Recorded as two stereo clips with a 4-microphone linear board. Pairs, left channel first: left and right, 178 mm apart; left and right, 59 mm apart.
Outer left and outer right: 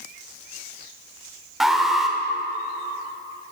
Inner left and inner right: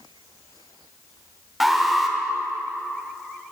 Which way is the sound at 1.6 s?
Centre (ahead or behind).